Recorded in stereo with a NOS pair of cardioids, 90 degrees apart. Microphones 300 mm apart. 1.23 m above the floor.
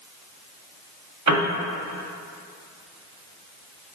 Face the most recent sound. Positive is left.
turn(degrees=-65)